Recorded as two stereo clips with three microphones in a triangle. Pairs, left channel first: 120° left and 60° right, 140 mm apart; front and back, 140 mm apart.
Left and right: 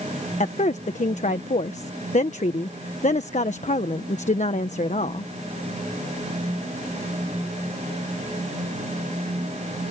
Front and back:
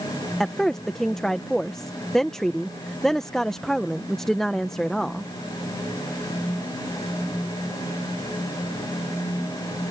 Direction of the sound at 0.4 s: 85° left.